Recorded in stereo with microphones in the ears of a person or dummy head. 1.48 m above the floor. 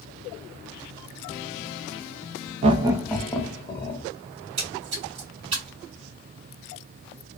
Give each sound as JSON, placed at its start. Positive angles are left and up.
{"t": 2.6, "sound": "laughter", "side_deg": -30, "distance_m": 0.5}
{"t": 4.3, "sound": "a splash", "side_deg": -40, "distance_m": 1.8}